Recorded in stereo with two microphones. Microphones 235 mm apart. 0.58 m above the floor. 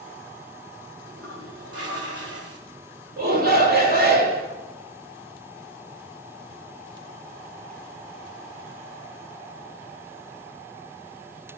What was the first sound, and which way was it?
A toilet flushing, 75° right (ahead or behind).